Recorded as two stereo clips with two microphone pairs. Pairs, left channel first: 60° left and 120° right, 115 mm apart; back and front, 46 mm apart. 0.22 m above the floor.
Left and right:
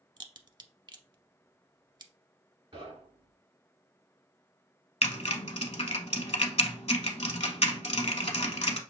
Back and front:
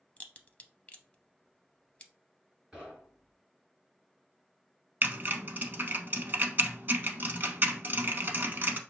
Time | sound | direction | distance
0.2 | a crack | 135° right | 0.5 m
2.7 | knocking | 80° right | 2.5 m
5.0 | typing on a keyboard | 35° left | 0.7 m